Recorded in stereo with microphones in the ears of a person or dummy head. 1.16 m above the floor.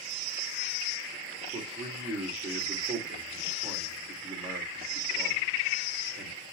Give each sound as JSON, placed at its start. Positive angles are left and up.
{"t": 1.5, "sound": "a man speaking", "side_deg": -25, "distance_m": 2.0}